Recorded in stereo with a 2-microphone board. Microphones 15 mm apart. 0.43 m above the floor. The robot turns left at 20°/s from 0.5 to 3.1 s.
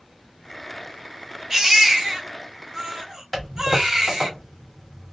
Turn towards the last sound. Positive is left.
turn(degrees=5)  # may be behind; listen again after turning